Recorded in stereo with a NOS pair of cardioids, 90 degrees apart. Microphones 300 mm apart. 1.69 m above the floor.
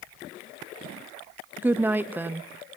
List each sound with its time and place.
1.6 s a woman speaking: 5° right, 0.8 m